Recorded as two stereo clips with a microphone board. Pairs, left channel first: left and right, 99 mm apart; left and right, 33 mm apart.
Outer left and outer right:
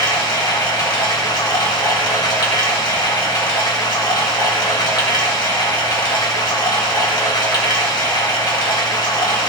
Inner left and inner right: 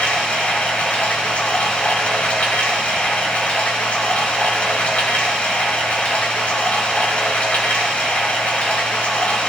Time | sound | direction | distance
0.0 | running water | 50° left (ahead or behind) | 1.7 m